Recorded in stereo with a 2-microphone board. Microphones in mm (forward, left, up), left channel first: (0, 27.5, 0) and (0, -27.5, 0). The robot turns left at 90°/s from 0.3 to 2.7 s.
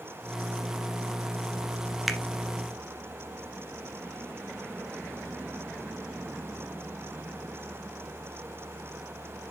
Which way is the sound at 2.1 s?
5° right (ahead or behind).